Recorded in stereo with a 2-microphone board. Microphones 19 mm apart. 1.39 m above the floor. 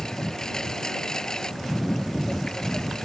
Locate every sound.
0.0 s a lawn mower: 40° left (ahead or behind)